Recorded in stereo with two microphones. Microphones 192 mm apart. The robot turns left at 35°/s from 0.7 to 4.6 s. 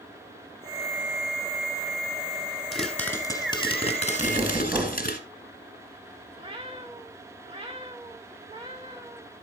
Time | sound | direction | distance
2.7 | a pop | straight behind | 1.8 m
4.2 | knocking | 25° right (ahead or behind) | 1.3 m
6.4 | a cat meowing | 25° right (ahead or behind) | 1.9 m